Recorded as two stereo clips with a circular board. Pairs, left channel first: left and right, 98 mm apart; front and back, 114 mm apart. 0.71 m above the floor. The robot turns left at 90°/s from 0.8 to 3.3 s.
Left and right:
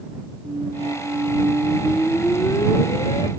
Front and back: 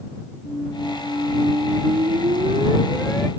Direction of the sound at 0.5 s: 65° right.